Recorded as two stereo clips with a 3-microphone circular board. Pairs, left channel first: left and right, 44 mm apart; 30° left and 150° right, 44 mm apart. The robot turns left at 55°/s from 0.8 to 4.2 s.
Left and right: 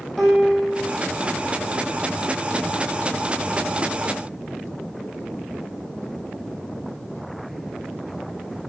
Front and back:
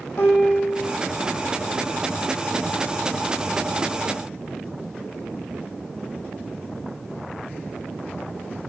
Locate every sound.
0.2 s a piano: 5° left, 4.5 m; by 0.9 s 5° right, 4.5 m